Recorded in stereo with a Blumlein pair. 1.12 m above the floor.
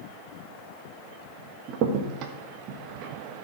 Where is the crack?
40° right, 1.2 m.